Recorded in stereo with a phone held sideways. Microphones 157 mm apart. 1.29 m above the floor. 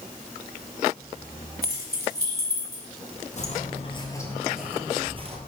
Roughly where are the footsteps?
Left.